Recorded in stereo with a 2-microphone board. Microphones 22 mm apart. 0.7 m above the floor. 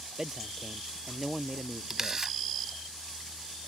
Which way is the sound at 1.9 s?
25° right (ahead or behind).